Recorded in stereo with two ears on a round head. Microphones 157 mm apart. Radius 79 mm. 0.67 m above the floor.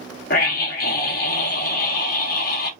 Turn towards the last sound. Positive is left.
turn(degrees=55)  # may be behind; listen again after turning